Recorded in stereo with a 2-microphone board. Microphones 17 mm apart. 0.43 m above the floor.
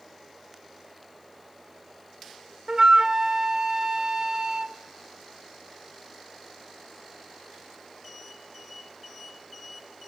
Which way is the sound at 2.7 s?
40° right (ahead or behind).